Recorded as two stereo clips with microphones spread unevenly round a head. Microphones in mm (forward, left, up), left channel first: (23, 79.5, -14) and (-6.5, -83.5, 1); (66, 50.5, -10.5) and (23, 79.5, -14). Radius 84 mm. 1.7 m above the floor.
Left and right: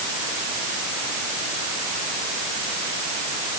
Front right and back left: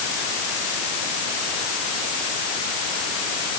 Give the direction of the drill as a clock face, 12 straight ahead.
I don't hear a drill.